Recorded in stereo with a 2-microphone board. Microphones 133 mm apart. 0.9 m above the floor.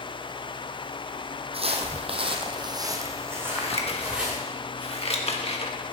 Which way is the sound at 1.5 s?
45° right (ahead or behind).